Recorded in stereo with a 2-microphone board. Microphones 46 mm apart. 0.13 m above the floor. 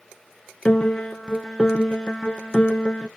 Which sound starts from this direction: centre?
A piano, at 0.7 s.